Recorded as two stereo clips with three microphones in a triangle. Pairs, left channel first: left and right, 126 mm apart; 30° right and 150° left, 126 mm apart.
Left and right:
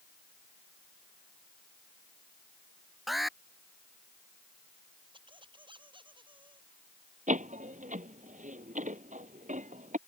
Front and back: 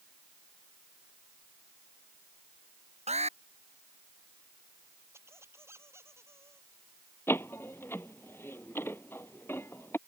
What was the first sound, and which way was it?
An alarm, straight behind.